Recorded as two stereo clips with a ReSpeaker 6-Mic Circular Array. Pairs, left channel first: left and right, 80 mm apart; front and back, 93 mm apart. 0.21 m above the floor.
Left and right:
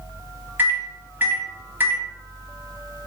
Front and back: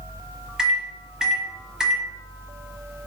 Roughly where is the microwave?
Right.